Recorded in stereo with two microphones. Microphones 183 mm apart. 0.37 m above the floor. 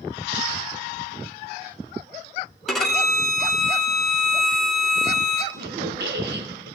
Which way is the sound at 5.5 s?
70° right (ahead or behind).